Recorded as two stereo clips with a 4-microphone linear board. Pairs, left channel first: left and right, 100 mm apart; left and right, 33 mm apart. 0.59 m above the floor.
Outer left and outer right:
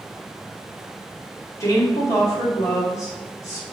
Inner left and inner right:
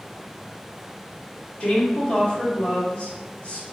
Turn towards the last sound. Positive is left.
turn(degrees=35)  # may be behind; listen again after turning